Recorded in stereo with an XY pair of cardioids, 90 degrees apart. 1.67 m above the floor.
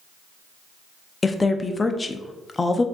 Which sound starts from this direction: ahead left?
A woman speaking, at 1.2 s.